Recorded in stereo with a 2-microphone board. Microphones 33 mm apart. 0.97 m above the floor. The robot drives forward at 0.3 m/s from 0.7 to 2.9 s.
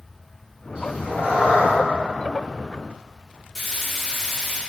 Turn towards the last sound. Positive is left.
turn(degrees=-10)  # may be behind; listen again after turning